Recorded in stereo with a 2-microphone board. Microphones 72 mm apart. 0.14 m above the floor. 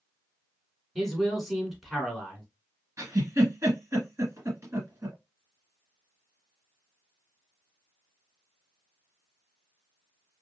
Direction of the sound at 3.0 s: 40° right (ahead or behind).